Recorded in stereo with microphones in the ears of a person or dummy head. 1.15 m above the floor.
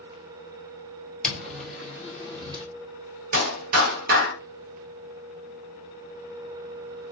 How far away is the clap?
About 1.0 m.